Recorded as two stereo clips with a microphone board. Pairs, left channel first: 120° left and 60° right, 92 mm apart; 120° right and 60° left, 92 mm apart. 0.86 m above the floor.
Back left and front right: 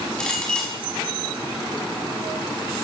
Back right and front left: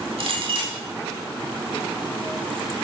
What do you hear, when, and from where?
0.2 s a clink: 40° left, 4 m